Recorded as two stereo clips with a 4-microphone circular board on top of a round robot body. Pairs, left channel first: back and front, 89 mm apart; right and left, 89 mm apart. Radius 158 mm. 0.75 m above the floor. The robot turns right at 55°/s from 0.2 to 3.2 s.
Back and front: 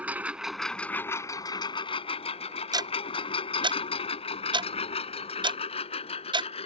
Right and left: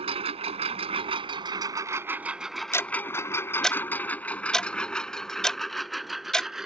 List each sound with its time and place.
0.0 s a lawn mower: 75° left; by 6.7 s 175° left
2.7 s ticking: 35° right; by 6.5 s 10° right